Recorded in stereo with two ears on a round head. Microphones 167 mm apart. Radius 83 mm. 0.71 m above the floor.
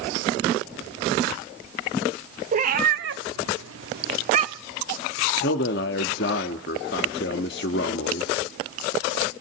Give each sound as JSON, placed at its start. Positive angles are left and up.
{"t": 2.5, "sound": "a cat meowing", "side_deg": -40, "distance_m": 1.6}
{"t": 5.4, "sound": "a man speaking", "side_deg": 60, "distance_m": 1.1}